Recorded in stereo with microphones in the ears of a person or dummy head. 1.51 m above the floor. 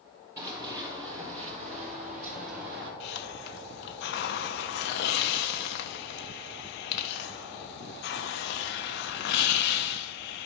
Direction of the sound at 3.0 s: 65° left (ahead or behind).